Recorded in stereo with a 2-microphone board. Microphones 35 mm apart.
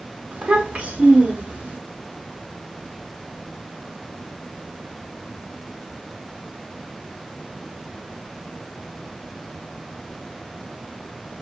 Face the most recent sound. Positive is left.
turn(degrees=-45)  # may be behind; listen again after turning